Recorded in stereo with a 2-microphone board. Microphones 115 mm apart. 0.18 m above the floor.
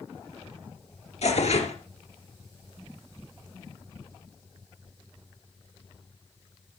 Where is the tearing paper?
70° left (ahead or behind), 2 m.